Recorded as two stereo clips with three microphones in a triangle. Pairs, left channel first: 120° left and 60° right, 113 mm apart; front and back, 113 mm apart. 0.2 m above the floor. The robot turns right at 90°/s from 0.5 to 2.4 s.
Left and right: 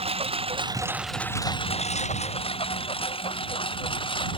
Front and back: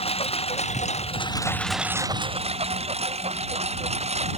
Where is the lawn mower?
30° right; by 4.4 s 160° left.